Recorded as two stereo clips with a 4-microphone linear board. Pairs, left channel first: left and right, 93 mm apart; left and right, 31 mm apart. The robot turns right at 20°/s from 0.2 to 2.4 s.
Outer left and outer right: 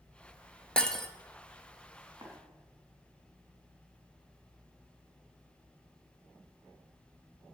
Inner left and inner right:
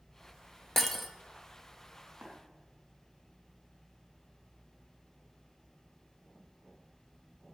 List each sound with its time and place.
0.8 s breaking glass: 10° left (ahead or behind), 0.8 m; by 1.1 s 5° left (ahead or behind), 0.8 m
2.2 s tapping: 40° right (ahead or behind), 3 m; by 2.3 s 45° right (ahead or behind), 3 m